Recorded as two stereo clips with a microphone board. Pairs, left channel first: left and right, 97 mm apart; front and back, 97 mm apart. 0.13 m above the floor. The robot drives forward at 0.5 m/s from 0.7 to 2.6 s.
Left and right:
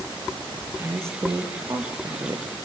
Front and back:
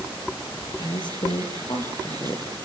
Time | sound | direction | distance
0.8 | a woman speaking | 30° right | 4 m